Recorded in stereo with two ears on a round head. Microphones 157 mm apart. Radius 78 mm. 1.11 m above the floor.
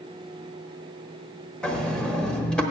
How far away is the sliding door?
About 0.8 m.